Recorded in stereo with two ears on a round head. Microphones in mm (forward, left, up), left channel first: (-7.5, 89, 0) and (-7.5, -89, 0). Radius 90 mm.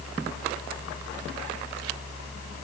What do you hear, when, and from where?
Only background noise.